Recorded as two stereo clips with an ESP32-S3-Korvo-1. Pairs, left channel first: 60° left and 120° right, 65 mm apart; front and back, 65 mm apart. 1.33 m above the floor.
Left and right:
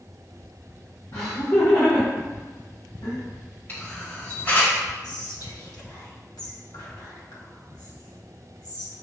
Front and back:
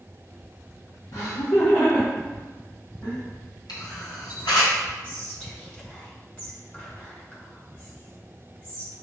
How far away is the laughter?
About 1.4 m.